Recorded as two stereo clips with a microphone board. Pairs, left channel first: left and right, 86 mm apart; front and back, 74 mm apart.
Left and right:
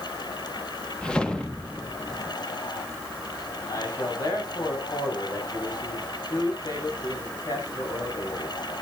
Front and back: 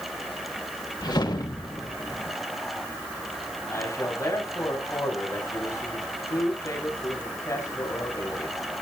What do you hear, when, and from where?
1.0 s a whoosh: 10° left, 1.5 m
3.7 s a man speaking: 50° left, 7 m